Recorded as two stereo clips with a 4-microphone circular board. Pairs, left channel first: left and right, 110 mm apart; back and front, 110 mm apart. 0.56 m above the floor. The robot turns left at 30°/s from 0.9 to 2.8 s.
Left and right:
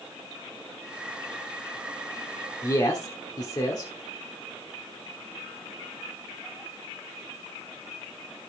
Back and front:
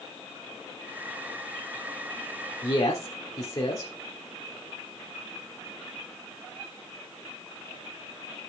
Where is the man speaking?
140° left, 1.5 m; by 3.9 s 135° left, 1.5 m.